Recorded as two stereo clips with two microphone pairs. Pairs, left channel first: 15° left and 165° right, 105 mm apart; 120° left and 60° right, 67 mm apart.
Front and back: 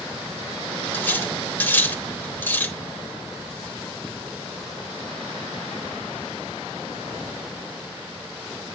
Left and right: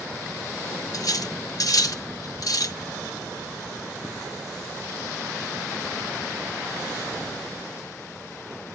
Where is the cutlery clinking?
85° left, 1.2 m.